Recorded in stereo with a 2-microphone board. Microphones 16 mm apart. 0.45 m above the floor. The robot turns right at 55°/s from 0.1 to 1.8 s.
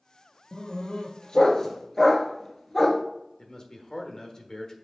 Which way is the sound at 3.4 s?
40° left (ahead or behind).